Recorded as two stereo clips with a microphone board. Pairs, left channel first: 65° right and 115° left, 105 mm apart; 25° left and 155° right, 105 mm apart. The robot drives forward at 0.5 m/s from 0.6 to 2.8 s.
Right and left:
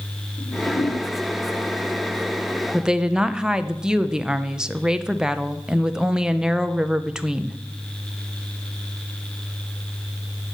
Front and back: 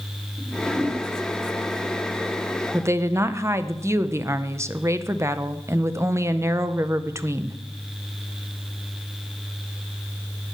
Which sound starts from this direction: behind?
A woman speaking, at 2.7 s.